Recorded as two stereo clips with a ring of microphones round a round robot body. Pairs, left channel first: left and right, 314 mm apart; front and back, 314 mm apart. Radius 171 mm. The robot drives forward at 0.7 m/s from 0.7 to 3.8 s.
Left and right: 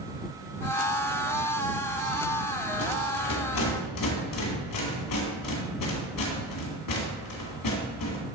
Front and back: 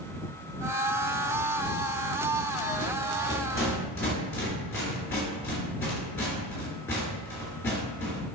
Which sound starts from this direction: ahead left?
A rattle, at 2.7 s.